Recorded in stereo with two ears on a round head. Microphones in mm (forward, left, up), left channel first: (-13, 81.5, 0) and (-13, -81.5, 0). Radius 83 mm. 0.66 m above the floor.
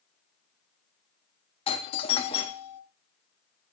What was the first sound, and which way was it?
A doorbell, 30° left (ahead or behind).